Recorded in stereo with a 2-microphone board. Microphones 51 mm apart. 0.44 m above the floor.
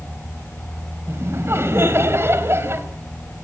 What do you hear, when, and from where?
1.1 s laughter: 55° right (ahead or behind), 3 m